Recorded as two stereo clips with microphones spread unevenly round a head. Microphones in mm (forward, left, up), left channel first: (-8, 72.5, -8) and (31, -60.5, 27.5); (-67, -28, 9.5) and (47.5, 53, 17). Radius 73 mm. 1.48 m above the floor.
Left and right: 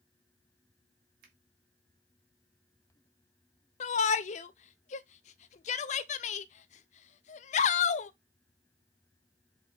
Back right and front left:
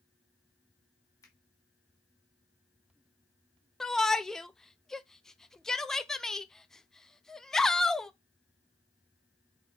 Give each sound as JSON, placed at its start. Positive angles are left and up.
{"t": 1.2, "sound": "a finger snap", "azimuth_deg": -75, "distance_m": 2.5}
{"t": 3.8, "sound": "a shout", "azimuth_deg": 130, "distance_m": 0.7}